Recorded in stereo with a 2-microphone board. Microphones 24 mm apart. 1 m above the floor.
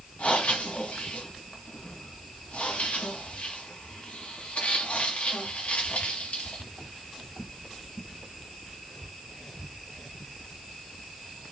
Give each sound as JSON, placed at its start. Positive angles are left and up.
{"t": 0.2, "sound": "breathing", "side_deg": 70, "distance_m": 2.0}